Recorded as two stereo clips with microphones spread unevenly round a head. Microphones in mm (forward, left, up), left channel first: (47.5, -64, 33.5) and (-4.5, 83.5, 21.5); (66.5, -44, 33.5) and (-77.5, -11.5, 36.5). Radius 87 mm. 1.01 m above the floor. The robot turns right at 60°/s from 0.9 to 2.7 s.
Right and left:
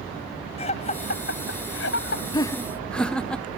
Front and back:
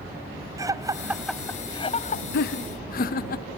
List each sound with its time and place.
0.6 s laughter: 125° right; by 2.2 s 45° right
2.3 s laughter: 5° right; by 3.5 s 15° left